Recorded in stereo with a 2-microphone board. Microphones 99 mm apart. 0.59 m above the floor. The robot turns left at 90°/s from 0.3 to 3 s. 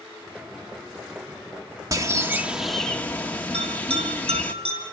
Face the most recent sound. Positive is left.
turn(degrees=-85)